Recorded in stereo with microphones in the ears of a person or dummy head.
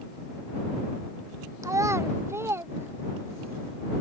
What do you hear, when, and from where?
1.6 s a child speaking: 20° right (ahead or behind); by 3.5 s 15° right (ahead or behind)